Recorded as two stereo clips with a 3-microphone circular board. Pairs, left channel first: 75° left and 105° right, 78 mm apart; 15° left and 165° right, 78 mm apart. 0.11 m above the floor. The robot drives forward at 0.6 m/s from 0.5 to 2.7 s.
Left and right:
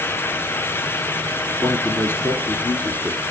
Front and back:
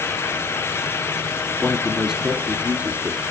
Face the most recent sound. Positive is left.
turn(degrees=135)